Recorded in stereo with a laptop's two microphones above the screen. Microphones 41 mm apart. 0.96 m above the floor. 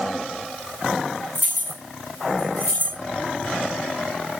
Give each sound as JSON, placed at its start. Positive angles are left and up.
{"t": 1.4, "sound": "keys jangling", "side_deg": 40, "distance_m": 1.8}